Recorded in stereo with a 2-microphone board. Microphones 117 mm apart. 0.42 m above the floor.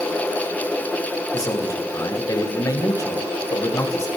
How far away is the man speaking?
About 1.9 m.